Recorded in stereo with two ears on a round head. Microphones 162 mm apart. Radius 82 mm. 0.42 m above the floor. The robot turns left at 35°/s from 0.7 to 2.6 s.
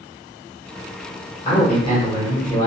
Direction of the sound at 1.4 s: 25° left (ahead or behind).